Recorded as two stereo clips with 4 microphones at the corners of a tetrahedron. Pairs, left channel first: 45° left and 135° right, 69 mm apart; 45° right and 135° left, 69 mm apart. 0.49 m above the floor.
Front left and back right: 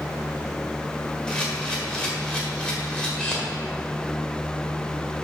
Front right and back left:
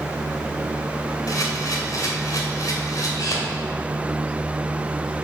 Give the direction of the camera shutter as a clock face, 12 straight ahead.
1 o'clock.